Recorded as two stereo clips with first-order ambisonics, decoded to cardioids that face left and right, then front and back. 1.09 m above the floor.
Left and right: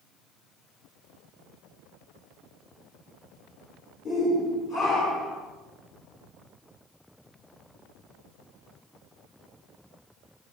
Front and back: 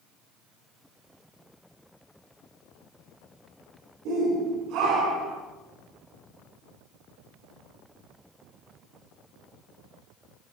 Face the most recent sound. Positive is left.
turn(degrees=140)